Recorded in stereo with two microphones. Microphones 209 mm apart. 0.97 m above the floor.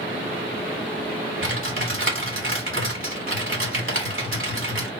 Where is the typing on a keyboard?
75° right (ahead or behind), 2 m.